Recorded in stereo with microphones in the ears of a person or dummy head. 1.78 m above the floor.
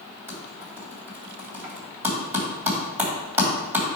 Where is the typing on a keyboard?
15° right (ahead or behind), 2 m.